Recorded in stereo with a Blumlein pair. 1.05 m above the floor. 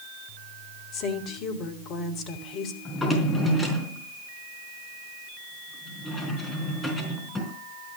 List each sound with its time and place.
0.9 s a woman speaking: 35° left, 2.5 m
2.9 s a drawer: 15° left, 4 m